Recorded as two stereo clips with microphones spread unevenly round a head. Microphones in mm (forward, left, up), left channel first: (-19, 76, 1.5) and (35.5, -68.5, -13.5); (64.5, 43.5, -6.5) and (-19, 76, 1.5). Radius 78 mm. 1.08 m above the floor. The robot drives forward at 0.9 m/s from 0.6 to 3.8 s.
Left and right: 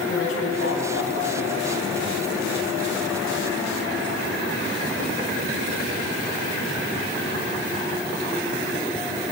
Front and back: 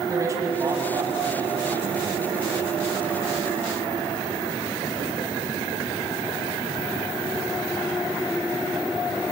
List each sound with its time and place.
0.1 s a man speaking: 100° left, 8.5 m; by 2.7 s 110° left, 9 m